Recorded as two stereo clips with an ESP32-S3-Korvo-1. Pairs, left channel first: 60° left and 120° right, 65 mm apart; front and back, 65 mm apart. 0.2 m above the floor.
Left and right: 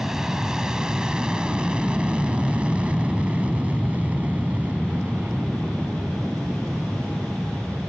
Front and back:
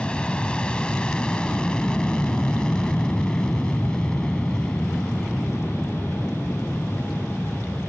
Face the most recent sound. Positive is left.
turn(degrees=-80)